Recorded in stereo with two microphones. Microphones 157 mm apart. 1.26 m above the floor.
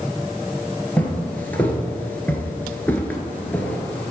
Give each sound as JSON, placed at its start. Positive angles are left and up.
{"t": 1.0, "sound": "footsteps", "side_deg": 10, "distance_m": 1.5}